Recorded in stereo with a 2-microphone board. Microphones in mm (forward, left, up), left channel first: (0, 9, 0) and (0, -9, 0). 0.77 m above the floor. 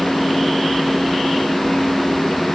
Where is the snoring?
No snoring in this recording.